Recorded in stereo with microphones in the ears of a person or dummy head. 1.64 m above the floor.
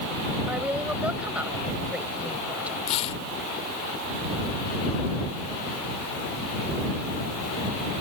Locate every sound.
0.5 s a woman speaking: 10° right (ahead or behind)
2.9 s tearing paper: 35° left (ahead or behind)